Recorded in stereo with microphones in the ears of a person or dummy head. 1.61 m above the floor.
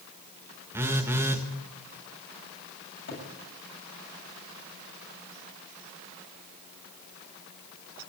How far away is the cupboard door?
About 8 m.